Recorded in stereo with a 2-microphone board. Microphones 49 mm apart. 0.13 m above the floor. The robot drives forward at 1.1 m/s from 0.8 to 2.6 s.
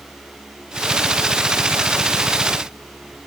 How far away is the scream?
I don't hear a scream.